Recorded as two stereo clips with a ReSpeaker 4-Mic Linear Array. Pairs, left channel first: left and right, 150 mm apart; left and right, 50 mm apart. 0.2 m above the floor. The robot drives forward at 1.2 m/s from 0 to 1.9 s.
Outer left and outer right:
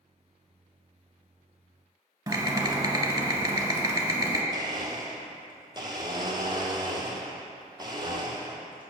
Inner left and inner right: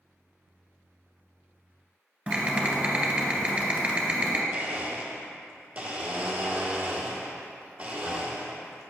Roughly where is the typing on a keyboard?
Right.